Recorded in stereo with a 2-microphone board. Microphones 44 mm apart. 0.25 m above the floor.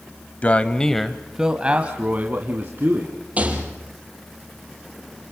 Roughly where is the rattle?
Right.